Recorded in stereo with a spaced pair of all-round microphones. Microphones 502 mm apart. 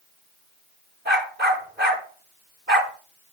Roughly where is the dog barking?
Centre.